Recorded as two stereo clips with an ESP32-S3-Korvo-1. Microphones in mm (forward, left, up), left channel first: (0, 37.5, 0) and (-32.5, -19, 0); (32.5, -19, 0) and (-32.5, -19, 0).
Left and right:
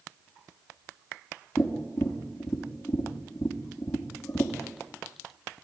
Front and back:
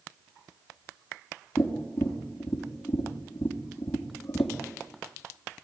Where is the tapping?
15° left, 3 m.